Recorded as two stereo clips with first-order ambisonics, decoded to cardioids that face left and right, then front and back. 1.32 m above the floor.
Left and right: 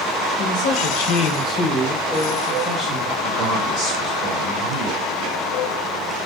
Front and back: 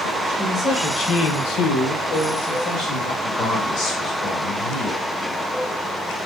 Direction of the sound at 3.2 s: 60° right.